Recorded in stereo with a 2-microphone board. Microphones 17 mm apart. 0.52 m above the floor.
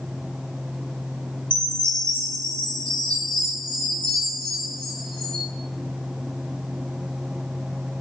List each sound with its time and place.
1.5 s a chime: 85° left, 5 m